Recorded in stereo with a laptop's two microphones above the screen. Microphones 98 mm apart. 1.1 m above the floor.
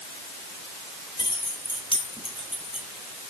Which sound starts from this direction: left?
Keys jangling, at 1.2 s.